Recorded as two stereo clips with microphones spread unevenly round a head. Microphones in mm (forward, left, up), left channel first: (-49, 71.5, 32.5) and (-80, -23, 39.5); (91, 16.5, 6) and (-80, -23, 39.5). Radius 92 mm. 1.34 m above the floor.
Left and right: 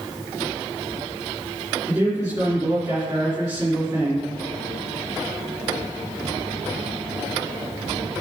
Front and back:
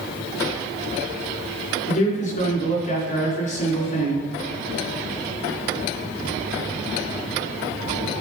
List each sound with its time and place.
1.9 s a man speaking: 35° right, 3 m